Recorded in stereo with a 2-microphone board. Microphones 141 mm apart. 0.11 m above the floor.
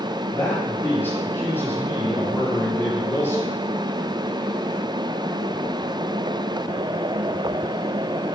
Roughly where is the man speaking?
Centre.